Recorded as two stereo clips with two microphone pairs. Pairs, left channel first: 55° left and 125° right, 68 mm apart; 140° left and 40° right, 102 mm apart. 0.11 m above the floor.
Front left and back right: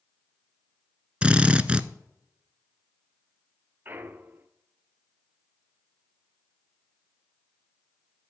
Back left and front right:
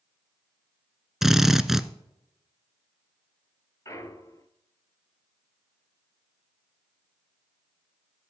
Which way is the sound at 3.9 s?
175° right.